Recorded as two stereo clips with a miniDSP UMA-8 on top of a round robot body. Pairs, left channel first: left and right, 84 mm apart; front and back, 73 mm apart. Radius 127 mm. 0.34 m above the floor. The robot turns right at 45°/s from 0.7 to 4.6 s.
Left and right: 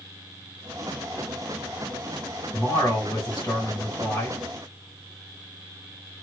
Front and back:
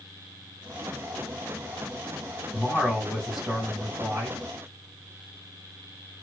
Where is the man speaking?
55° left, 1.9 m; by 4.4 s 145° left, 1.9 m.